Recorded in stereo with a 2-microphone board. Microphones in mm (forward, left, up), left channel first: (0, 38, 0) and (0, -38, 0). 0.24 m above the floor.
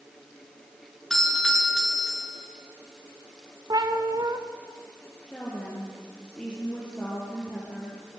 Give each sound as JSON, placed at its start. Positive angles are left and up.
{"t": 1.1, "sound": "a doorbell", "side_deg": 5, "distance_m": 4.5}
{"t": 3.7, "sound": "a cat meowing", "side_deg": -55, "distance_m": 2.5}
{"t": 5.3, "sound": "a woman speaking", "side_deg": 15, "distance_m": 6.5}